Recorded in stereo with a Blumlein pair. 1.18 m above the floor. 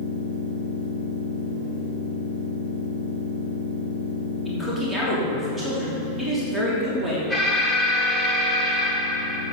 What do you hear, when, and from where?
0.0 s a machine running: 45° right, 2.5 m
4.5 s a man speaking: 10° right, 3 m
7.3 s an alarm: 5° right, 2 m